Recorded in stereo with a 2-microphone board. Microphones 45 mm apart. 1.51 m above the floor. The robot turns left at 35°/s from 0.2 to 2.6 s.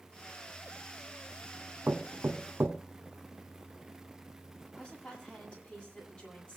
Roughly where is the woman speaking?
Left.